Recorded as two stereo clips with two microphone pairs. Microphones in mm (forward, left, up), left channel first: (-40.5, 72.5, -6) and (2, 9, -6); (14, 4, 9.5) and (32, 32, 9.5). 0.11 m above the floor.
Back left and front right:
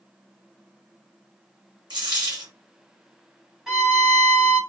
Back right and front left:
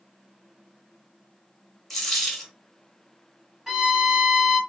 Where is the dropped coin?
40° right, 1.5 m.